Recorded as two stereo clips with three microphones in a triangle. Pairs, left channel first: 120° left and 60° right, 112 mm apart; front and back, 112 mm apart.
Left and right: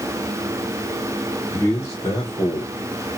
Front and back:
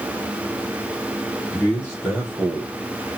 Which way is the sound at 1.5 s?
80° left.